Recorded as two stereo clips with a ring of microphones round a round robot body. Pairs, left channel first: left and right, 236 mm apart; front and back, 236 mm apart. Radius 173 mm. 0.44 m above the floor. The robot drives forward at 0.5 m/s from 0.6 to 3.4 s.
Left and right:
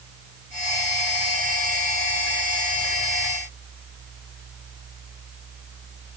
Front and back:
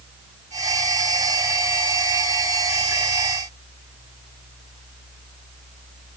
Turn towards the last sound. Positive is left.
No sound to turn to.